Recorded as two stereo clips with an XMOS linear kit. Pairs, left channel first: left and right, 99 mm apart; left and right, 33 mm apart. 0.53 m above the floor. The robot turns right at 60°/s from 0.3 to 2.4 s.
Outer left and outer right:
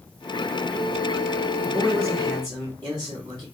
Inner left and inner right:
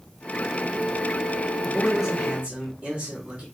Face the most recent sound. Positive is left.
turn(degrees=-135)